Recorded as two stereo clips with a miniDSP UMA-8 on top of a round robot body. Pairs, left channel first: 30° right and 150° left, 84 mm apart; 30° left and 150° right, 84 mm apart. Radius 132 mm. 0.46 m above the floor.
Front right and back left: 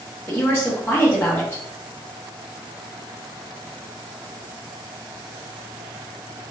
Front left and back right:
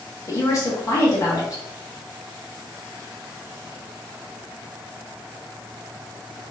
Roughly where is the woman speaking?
Ahead.